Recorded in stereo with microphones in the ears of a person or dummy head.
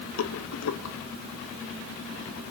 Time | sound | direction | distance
0.2 | a rattle | 80° left | 1.5 m